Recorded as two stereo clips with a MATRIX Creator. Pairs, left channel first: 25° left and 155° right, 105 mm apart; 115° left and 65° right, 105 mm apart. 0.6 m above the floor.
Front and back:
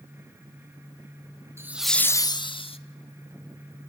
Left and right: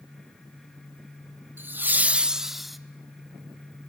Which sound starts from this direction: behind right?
Laughter, at 1.6 s.